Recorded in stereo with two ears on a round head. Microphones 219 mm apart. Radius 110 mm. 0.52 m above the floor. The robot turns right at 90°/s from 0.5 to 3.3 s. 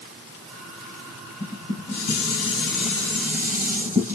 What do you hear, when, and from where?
1.4 s dishes clattering: 20° left, 2.5 m; by 4.2 s 170° right, 2.5 m